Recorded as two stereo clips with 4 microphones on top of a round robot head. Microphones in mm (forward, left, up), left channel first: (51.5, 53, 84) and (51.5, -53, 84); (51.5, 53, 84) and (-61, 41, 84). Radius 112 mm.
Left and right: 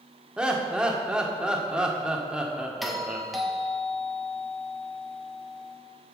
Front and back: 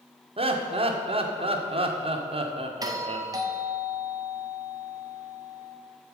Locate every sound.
0.4 s laughter: 170° right, 1.5 m
2.8 s a doorbell: straight behind, 1.5 m